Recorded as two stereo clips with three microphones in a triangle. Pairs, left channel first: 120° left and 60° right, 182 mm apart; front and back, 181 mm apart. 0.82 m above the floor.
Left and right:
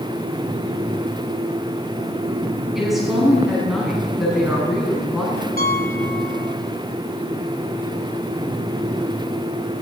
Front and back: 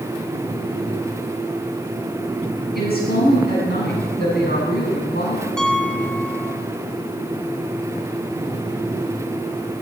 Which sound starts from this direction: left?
A piano, at 5.6 s.